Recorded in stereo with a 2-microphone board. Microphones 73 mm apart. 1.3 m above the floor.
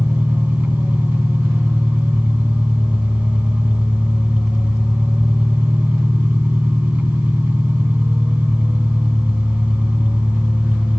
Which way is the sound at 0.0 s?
25° right (ahead or behind).